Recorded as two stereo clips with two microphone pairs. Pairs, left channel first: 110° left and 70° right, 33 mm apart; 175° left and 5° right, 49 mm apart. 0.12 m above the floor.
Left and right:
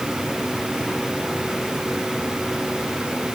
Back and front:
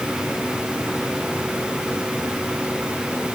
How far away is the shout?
I don't hear a shout.